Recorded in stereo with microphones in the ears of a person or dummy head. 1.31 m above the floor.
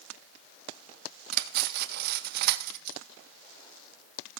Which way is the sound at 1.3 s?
55° right (ahead or behind).